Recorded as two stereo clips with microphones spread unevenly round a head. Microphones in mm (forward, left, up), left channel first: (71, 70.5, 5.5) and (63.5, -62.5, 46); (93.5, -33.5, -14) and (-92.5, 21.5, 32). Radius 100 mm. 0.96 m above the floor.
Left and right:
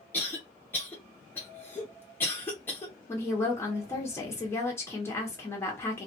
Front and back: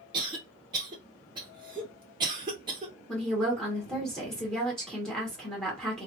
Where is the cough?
90° left, 0.7 m.